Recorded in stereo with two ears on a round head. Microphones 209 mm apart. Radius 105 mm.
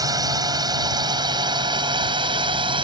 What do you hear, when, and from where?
0.0 s a drone: 15° right (ahead or behind); by 2.8 s 20° right (ahead or behind)